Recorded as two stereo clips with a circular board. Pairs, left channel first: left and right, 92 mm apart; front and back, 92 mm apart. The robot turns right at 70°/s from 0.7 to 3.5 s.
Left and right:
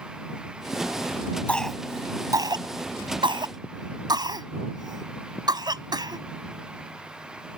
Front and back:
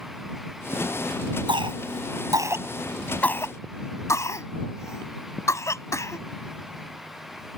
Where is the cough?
165° left; by 6.2 s 55° right.